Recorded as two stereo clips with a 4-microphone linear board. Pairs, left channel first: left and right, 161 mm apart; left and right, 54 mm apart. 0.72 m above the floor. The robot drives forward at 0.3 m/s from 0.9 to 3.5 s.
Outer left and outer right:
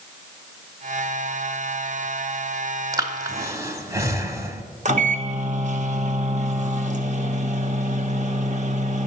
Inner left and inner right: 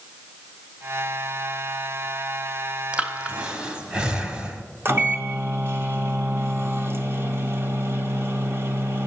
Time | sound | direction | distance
2.9 | breathing | 25° right (ahead or behind) | 1.0 m
4.8 | a microwave | 50° right (ahead or behind) | 0.9 m